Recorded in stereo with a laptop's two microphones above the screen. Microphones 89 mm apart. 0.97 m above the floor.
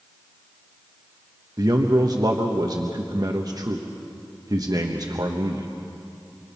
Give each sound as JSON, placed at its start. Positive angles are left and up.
{"t": 1.6, "sound": "a man speaking", "side_deg": -45, "distance_m": 1.0}